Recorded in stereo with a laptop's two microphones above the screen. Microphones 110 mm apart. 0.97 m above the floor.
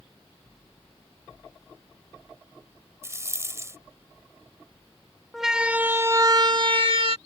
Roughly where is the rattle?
Right.